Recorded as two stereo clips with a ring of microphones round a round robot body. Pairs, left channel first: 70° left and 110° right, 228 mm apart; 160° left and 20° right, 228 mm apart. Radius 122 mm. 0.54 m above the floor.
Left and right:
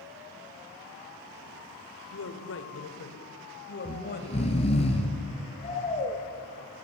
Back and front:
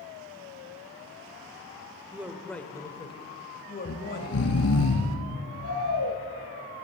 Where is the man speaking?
55° left, 2 m; by 4.6 s 120° left, 4 m.